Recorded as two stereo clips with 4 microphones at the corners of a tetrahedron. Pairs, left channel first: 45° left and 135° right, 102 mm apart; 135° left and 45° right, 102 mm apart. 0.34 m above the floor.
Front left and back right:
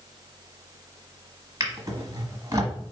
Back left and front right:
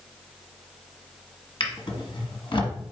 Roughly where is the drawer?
Behind.